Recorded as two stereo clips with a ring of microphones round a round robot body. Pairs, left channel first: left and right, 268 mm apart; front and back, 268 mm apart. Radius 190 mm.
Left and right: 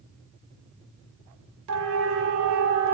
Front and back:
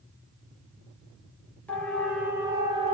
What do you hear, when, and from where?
1.7 s a siren: 85° right, 3 m; by 2.9 s 115° right, 2 m